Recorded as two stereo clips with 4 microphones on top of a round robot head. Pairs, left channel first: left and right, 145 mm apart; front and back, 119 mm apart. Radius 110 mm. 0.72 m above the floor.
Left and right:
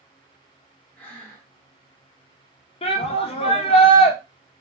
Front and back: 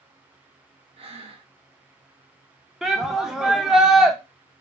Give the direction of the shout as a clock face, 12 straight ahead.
9 o'clock.